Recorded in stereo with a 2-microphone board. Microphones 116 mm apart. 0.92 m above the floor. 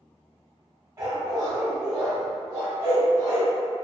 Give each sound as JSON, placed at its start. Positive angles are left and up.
{"t": 1.0, "sound": "a dog barking", "side_deg": -25, "distance_m": 1.5}